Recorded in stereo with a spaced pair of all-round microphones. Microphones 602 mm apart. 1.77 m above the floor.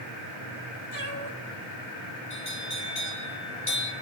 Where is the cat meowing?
45° right (ahead or behind), 3 m.